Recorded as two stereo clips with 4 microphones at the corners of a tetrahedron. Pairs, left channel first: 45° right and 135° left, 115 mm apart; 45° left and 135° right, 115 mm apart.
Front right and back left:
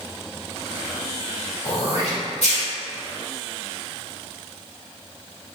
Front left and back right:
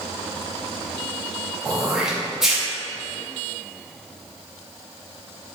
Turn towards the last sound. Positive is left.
turn(degrees=-50)